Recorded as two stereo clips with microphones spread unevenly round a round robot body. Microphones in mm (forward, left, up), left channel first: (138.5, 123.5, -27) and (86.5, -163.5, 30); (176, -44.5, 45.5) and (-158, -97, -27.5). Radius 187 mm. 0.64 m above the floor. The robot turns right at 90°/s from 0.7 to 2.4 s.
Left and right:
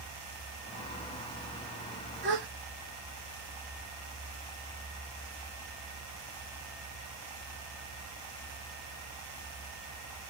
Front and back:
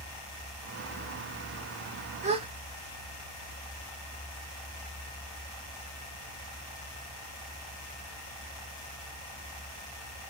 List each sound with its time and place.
2.2 s a gasp: 145° right, 0.9 m; by 2.5 s 130° right, 0.9 m